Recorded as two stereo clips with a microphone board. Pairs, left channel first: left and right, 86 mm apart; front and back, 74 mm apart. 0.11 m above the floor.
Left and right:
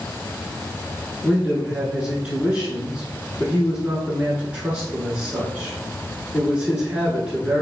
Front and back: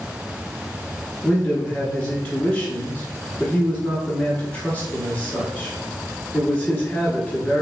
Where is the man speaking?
40° right, 1.1 m.